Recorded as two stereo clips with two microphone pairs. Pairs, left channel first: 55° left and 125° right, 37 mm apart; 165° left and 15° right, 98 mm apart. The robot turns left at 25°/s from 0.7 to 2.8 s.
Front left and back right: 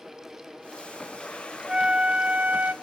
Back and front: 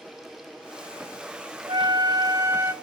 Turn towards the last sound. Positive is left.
turn(degrees=-85)